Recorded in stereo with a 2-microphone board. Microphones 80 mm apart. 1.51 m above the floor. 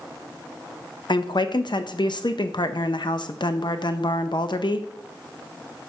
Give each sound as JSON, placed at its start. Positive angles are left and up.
{"t": 1.1, "sound": "a woman speaking", "side_deg": 70, "distance_m": 0.6}